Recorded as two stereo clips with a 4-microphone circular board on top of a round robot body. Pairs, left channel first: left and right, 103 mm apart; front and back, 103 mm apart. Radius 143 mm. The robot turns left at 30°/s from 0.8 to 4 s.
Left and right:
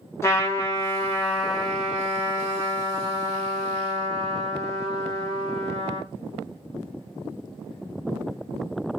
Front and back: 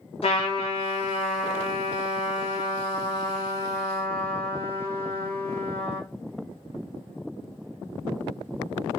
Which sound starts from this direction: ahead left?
A trumpet, at 0.2 s.